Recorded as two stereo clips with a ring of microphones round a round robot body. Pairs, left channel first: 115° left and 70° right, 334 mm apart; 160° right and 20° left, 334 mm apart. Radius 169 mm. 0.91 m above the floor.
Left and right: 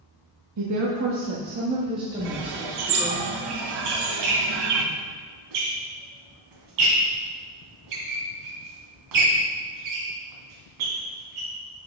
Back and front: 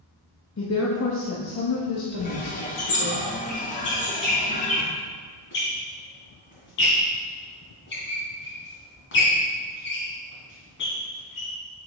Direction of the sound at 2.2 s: 90° right.